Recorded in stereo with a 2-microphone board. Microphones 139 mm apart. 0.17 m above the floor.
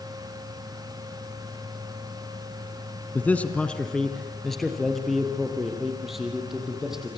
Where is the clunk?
No clunk in this recording.